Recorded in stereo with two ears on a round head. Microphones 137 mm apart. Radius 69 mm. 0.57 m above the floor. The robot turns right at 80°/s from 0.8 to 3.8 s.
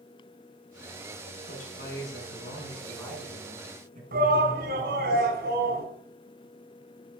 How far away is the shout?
About 3.5 m.